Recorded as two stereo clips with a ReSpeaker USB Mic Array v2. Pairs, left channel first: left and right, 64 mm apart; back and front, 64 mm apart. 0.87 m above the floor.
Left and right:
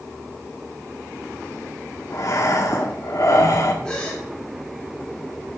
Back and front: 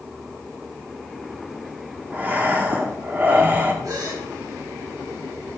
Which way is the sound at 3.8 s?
15° left.